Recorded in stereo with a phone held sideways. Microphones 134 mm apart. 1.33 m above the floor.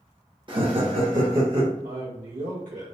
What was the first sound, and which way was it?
Laughter, 40° right (ahead or behind).